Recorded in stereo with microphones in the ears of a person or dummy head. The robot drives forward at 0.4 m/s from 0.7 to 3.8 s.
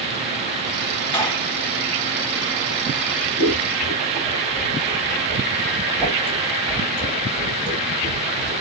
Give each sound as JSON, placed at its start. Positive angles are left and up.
{"t": 1.1, "sound": "a gunshot", "side_deg": 20, "distance_m": 2.5}
{"t": 3.4, "sound": "scissors", "side_deg": 0, "distance_m": 3.0}